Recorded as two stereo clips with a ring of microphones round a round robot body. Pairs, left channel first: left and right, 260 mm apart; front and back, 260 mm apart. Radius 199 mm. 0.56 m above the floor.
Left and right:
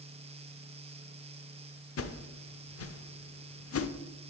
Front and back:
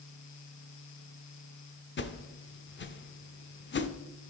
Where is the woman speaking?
No woman speaking in this recording.